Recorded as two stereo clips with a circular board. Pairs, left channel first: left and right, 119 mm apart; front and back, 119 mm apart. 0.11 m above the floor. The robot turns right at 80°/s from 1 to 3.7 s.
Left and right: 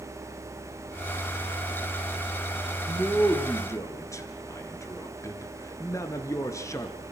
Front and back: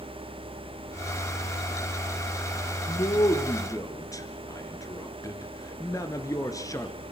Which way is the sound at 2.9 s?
25° right.